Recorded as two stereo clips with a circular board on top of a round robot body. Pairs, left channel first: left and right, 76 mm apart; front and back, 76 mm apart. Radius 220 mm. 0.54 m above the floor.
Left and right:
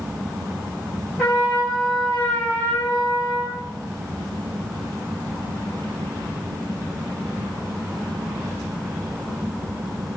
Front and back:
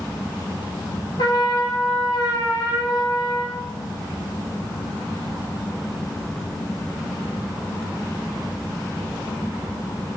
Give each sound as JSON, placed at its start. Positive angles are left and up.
{"t": 1.2, "sound": "a trumpet", "azimuth_deg": 20, "distance_m": 4.0}